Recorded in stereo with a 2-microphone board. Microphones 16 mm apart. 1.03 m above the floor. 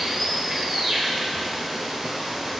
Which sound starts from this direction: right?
Running water, at 0.0 s.